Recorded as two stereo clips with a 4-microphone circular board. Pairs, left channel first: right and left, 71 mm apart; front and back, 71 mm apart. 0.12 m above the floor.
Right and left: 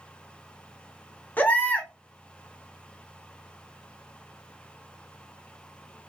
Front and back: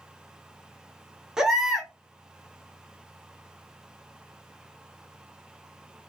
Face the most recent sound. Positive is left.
turn(degrees=-110)